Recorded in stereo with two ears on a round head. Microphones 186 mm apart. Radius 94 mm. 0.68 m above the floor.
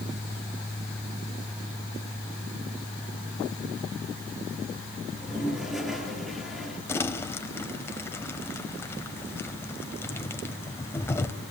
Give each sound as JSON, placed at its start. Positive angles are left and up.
{"t": 5.1, "sound": "a toilet flushing", "side_deg": 0, "distance_m": 4.0}
{"t": 6.9, "sound": "crumpling", "side_deg": 10, "distance_m": 1.4}